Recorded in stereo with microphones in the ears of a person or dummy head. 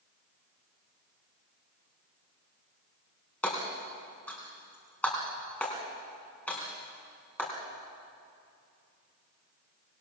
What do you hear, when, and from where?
3.4 s hammering: 10° left (ahead or behind), 4 m